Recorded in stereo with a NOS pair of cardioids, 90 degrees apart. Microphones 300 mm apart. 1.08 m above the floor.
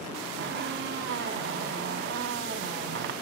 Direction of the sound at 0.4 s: 40° right.